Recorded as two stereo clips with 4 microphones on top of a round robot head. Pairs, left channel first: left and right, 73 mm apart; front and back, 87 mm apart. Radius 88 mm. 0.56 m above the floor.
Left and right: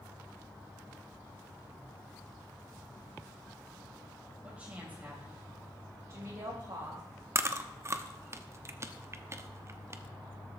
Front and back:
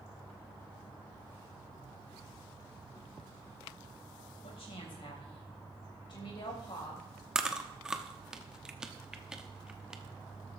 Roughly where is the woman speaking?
Ahead.